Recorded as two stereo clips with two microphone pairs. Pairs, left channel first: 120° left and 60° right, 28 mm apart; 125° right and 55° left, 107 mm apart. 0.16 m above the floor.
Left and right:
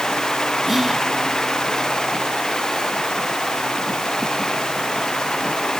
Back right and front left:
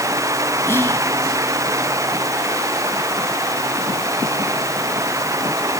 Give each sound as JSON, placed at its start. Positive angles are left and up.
{"t": 0.7, "sound": "whispering", "azimuth_deg": -135, "distance_m": 1.2}